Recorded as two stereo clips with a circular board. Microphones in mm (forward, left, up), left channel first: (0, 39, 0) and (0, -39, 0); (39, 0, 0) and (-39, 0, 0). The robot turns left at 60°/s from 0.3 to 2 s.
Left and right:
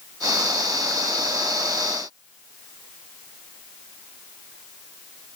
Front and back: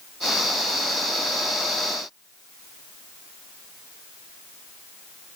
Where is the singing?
No singing in this recording.